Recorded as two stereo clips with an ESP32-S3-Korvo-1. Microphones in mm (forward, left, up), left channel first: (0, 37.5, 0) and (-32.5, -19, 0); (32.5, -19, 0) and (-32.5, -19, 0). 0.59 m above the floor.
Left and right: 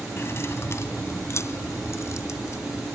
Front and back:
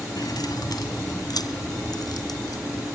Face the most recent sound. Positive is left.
turn(degrees=15)